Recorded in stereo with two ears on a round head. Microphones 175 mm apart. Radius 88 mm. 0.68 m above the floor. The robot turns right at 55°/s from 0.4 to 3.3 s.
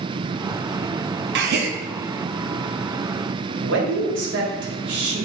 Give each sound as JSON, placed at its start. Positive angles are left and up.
{"t": 1.4, "sound": "a gasp", "side_deg": -55, "distance_m": 0.6}
{"t": 3.6, "sound": "a man speaking", "side_deg": -60, "distance_m": 1.4}